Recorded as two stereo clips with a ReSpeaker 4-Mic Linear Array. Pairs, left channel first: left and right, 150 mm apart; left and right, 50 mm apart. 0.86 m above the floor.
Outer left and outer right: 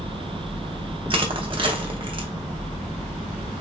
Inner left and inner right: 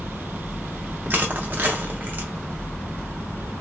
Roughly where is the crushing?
Right.